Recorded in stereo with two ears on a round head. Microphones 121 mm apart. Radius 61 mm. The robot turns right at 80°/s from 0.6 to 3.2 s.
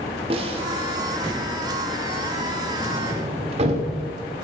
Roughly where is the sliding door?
Right.